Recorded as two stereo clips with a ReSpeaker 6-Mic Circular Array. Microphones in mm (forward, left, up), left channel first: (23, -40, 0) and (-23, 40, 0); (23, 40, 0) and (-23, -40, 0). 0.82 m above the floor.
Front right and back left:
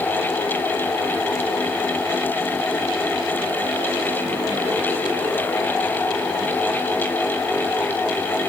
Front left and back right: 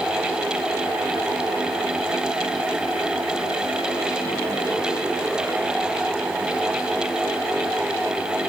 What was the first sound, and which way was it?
Only background noise.